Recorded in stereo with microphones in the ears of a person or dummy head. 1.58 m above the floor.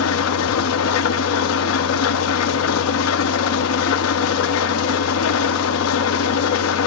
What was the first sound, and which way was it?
An engine running, 75° left (ahead or behind).